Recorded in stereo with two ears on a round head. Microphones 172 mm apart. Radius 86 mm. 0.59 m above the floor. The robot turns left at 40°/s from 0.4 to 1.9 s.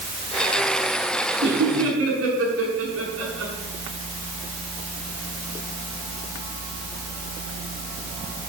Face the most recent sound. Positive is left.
turn(degrees=-80)